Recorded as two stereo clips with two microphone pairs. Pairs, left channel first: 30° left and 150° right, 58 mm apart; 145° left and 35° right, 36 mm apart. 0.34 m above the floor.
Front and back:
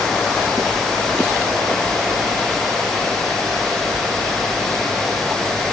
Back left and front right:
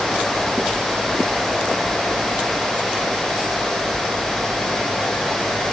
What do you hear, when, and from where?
Only background noise.